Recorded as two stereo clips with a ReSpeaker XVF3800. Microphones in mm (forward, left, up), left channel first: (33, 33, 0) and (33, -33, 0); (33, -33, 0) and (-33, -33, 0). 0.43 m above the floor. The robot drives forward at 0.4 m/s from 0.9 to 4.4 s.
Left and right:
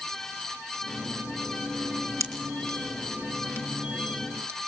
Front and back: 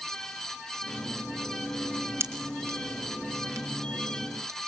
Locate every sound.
2.2 s a pop: 130° right, 3.5 m; by 4.6 s 140° right, 4 m